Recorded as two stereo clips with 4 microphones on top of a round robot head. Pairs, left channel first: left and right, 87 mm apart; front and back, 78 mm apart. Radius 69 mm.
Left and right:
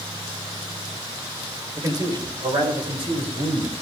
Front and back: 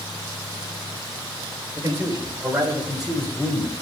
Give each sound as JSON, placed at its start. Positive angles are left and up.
{"t": 1.8, "sound": "a man speaking", "azimuth_deg": -125, "distance_m": 2.5}